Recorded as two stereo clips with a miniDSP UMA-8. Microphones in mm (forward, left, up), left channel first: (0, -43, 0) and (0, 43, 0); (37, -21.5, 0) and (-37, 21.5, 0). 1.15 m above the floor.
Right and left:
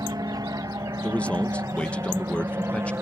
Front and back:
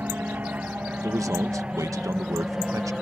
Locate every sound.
0.0 s an aircraft: 85° left; by 3.0 s 65° left
1.0 s a man speaking: 165° right